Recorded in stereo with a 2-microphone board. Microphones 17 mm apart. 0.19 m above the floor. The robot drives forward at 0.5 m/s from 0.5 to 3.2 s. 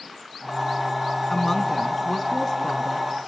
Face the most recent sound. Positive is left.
turn(degrees=15)  # may be behind; listen again after turning